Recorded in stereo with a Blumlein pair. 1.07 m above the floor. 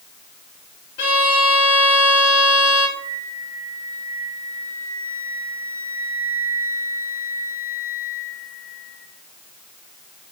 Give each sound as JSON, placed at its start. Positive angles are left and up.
{"t": 1.0, "sound": "a violin", "azimuth_deg": 55, "distance_m": 1.4}
{"t": 3.0, "sound": "a flute", "azimuth_deg": -65, "distance_m": 1.1}